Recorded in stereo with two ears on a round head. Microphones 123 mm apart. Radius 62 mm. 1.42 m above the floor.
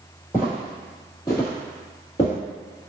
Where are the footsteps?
20° left (ahead or behind), 1.8 m; by 2.3 s 40° left (ahead or behind), 1.7 m.